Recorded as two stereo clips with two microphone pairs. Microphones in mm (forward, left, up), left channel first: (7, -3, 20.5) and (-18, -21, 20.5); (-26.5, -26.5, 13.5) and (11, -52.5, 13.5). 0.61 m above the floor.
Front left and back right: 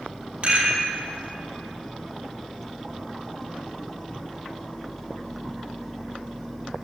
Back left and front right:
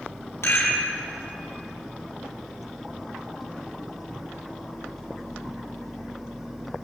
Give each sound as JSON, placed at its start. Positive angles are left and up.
{"t": 0.4, "sound": "a rattle", "azimuth_deg": 165, "distance_m": 3.0}